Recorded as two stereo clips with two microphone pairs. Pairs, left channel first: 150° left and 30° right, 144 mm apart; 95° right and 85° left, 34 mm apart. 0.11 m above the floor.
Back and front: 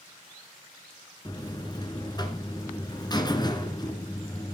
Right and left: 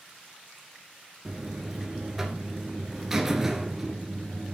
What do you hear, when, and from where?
1.2 s a buzzer: 150° left, 1.6 m